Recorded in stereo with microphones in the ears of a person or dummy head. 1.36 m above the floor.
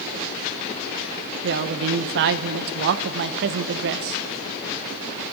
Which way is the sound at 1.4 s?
55° right (ahead or behind).